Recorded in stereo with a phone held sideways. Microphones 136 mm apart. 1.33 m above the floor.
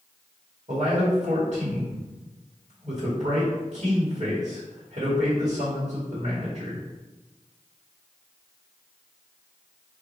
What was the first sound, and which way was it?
A man speaking, 55° right (ahead or behind).